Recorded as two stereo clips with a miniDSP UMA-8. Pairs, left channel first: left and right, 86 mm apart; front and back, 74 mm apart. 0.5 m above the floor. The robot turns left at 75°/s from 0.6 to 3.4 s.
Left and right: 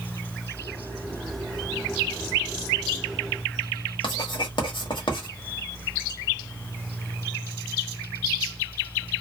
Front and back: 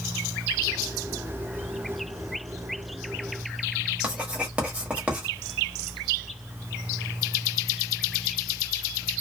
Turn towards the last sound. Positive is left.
turn(degrees=110)